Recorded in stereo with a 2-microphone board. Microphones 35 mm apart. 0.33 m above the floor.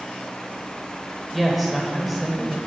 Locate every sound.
1.3 s a woman speaking: 5° right (ahead or behind), 1.1 m